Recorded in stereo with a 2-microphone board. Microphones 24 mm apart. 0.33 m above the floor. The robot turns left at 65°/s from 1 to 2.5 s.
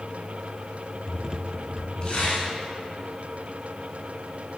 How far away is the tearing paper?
About 2.5 m.